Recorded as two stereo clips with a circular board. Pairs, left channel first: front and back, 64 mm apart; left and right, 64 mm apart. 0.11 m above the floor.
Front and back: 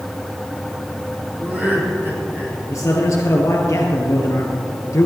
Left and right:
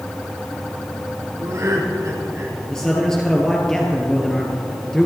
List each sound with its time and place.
1.4 s laughter: 115° right, 3.5 m; by 2.6 s 130° right, 4 m
2.7 s a man speaking: 10° left, 1.9 m